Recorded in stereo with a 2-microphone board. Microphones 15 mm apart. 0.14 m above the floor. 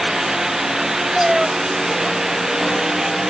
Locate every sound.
1.1 s a cat meowing: 25° right (ahead or behind)